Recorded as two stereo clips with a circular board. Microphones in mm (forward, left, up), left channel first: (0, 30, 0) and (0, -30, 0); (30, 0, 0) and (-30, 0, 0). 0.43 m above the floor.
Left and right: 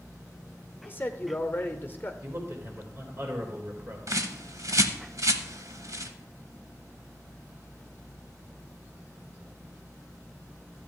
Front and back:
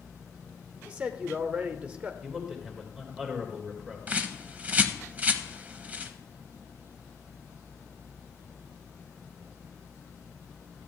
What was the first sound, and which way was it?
A man speaking, 125° left.